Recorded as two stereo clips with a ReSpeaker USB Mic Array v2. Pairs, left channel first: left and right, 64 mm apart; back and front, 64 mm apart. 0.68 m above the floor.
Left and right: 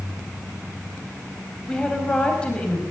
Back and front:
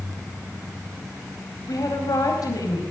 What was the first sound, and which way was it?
A woman speaking, 165° left.